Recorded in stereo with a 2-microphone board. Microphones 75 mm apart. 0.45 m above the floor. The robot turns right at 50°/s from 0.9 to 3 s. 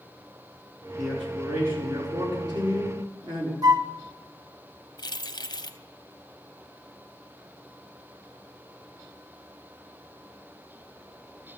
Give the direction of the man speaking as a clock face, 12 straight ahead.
6 o'clock.